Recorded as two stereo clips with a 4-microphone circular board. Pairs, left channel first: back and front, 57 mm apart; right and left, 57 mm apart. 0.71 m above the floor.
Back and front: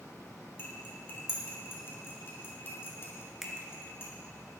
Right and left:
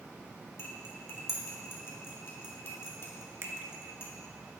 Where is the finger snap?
80° left, 1.1 m.